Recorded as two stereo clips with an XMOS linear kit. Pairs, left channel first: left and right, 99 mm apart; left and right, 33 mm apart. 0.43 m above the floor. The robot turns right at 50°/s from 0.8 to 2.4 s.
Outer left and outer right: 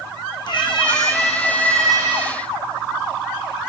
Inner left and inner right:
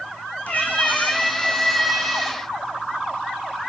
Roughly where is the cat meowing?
Behind left.